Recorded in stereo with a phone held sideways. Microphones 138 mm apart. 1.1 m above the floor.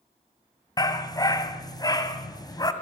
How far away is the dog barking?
About 2 m.